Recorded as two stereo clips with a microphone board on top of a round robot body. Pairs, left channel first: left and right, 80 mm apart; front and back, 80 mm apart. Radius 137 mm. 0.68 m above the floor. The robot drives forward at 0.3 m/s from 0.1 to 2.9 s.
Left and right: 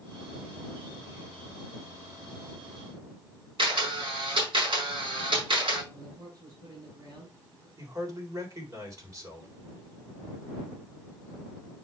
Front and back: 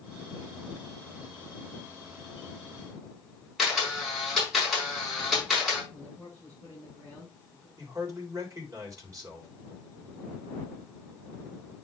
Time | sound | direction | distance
3.6 | a camera shutter | 95° right | 5 m
5.9 | a man speaking | 130° right | 6 m
7.8 | a man speaking | 135° right | 4 m